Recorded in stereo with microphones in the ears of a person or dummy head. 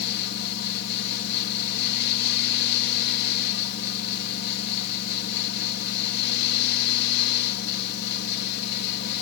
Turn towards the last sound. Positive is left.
turn(degrees=75)  # may be behind; listen again after turning